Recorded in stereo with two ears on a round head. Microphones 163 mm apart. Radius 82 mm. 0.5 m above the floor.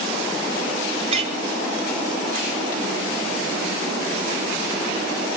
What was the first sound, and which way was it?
A clink, 35° right (ahead or behind).